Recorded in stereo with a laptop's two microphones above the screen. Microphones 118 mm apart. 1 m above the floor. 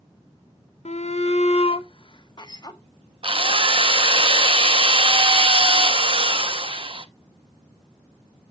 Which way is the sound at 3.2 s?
50° right (ahead or behind).